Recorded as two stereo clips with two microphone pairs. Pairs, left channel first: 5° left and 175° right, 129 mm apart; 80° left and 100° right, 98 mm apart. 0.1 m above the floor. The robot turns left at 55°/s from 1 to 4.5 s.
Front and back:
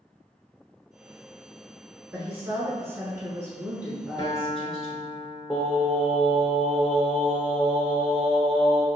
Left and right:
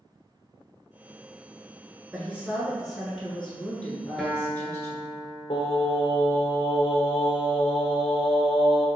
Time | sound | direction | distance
2.1 | a woman speaking | 130° right | 1.1 m
4.2 | a guitar | 10° right | 0.8 m
5.5 | singing | 110° left | 1.1 m